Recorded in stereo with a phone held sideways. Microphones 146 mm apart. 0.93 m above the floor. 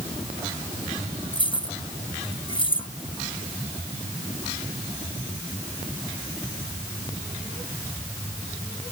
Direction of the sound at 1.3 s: 35° left (ahead or behind).